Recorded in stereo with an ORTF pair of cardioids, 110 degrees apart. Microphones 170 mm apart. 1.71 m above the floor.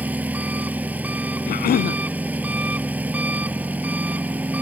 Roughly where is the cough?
Ahead left.